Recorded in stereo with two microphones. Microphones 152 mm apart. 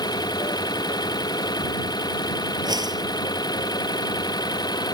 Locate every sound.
0.0 s an engine running: 25° left (ahead or behind)
2.6 s a whoosh: 25° right (ahead or behind)